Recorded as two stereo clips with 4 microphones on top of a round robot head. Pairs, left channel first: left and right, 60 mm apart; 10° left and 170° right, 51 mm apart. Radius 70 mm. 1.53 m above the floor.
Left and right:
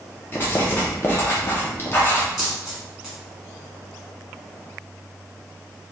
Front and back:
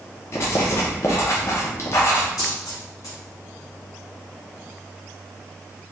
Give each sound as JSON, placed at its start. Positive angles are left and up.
{"t": 0.3, "sound": "writing", "azimuth_deg": 40, "distance_m": 0.7}
{"t": 2.4, "sound": "a dropped coin", "azimuth_deg": -10, "distance_m": 1.3}